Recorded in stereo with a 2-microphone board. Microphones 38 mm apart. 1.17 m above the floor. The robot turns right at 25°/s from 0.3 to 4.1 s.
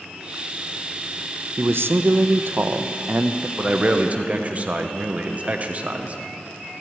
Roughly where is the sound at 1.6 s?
Right.